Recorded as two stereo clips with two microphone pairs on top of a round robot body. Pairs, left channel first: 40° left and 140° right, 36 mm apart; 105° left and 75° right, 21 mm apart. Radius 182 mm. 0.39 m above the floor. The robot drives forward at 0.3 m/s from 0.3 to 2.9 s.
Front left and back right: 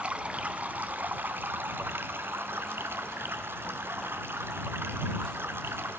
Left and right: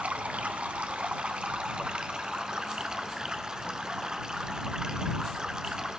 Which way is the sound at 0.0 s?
85° right.